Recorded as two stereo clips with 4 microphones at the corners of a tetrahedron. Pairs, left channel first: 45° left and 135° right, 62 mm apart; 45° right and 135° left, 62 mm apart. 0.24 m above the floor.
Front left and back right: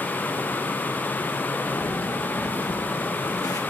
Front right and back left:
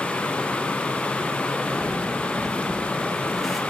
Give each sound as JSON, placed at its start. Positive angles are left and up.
{"t": 1.7, "sound": "footsteps", "azimuth_deg": 35, "distance_m": 2.5}